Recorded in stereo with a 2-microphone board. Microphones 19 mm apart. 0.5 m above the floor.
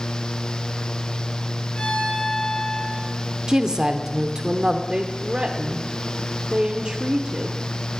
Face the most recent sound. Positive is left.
turn(degrees=-45)  # may be behind; listen again after turning